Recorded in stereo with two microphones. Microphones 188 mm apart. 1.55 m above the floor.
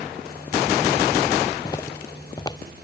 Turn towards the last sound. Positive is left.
turn(degrees=20)  # may be behind; listen again after turning